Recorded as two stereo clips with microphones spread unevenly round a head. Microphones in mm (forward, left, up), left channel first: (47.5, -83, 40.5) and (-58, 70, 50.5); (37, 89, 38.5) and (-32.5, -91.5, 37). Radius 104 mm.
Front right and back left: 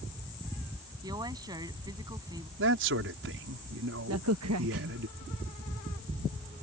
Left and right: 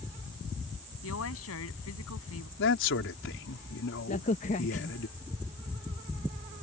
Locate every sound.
1.0 s a woman speaking: 55° left
2.6 s a man speaking: 100° left
4.1 s a crack: 125° left